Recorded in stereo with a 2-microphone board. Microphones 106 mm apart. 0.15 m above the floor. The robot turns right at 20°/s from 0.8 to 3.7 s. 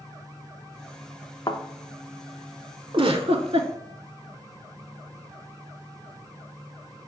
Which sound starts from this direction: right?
A giggle, at 2.9 s.